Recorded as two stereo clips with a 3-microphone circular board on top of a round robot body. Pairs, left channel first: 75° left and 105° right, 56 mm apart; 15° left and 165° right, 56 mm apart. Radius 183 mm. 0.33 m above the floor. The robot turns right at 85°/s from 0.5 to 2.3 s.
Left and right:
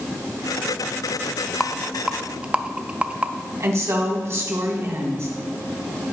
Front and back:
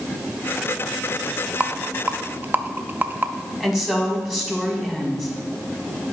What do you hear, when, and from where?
1.6 s a rattle: 145° left, 0.7 m; by 3.3 s 155° right, 0.7 m
3.6 s a woman speaking: 85° right, 2 m